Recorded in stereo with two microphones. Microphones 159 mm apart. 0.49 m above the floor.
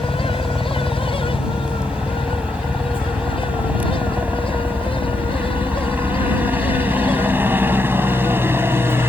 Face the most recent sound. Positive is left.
turn(degrees=-15)  # may be behind; listen again after turning